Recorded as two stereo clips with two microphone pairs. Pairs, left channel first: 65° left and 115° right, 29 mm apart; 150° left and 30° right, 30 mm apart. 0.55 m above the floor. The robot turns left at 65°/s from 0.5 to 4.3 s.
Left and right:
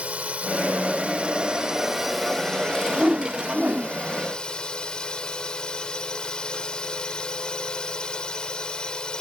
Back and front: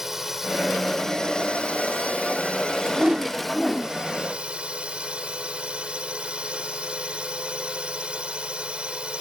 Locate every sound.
0.0 s a drone: 100° right; by 9.2 s 10° left
2.9 s a whoosh: 70° right; by 4.0 s 140° right